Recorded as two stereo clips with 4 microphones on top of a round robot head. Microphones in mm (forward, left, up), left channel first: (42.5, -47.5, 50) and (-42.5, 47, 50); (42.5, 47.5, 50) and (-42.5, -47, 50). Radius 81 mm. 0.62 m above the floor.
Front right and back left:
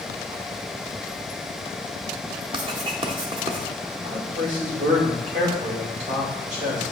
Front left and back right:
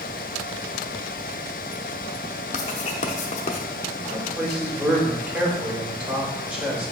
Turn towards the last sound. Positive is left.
turn(degrees=150)